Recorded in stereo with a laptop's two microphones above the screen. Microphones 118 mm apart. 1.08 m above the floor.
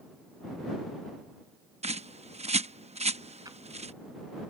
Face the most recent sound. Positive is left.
turn(degrees=-35)  # may be behind; listen again after turning